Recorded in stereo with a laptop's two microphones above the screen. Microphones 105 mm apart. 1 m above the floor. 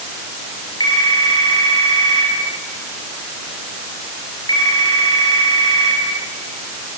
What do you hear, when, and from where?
0.8 s a phone ringing: 40° left (ahead or behind), 5 m